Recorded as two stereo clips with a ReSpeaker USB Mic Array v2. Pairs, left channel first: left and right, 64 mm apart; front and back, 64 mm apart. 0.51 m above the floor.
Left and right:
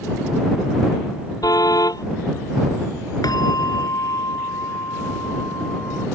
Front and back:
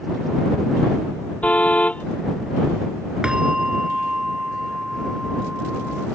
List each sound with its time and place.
1.4 s a car horn: 70° left
3.2 s a bell: 105° left